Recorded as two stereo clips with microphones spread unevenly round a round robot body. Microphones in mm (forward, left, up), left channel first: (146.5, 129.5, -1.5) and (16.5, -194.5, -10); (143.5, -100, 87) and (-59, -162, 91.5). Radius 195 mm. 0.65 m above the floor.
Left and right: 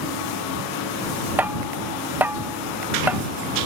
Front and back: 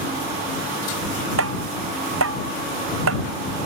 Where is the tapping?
160° left.